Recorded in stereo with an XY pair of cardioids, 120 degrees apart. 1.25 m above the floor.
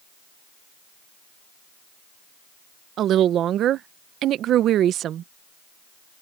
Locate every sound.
3.0 s a woman speaking: 60° right